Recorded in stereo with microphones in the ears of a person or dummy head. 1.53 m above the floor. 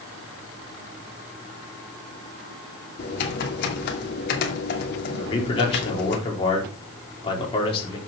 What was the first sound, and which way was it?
Typing on a keyboard, 60° left (ahead or behind).